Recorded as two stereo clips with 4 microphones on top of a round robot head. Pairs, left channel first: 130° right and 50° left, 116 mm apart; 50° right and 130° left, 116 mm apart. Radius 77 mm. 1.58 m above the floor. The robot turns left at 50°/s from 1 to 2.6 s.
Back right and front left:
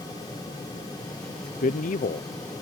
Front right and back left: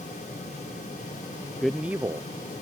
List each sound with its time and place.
1.6 s a man speaking: 135° right; by 2.6 s 175° left